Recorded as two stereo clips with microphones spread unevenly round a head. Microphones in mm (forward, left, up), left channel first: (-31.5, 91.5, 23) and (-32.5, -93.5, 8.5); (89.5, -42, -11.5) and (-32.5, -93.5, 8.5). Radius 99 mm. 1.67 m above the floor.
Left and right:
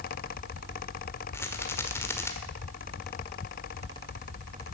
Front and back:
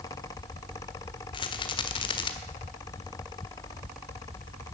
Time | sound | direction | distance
1.3 | a rattle | 35° left | 1.4 m